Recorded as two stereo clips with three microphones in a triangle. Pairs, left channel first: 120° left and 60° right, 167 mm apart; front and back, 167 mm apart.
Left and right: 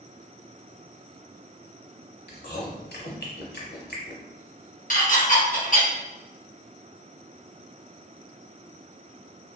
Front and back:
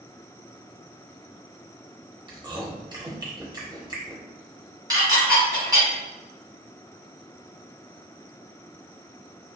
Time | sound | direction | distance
2.3 | chewing | 115° left | 0.6 m
4.9 | dishes clattering | 120° left | 0.9 m